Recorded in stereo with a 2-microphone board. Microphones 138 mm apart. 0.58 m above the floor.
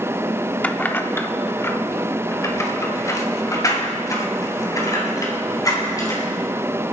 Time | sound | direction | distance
0.6 | keys jangling | 10° left (ahead or behind) | 0.7 m